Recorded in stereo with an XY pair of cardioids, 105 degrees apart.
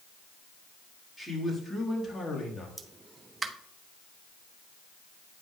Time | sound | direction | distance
1.2 | a man speaking | straight ahead | 4 m
2.8 | a pop | 30° right | 0.8 m